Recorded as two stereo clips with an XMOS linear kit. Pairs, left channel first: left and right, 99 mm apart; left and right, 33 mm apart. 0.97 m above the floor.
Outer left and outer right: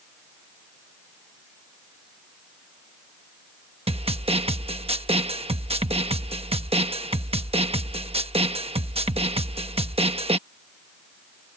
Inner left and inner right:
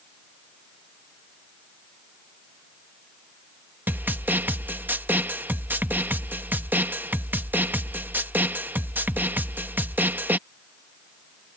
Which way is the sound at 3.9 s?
70° right (ahead or behind).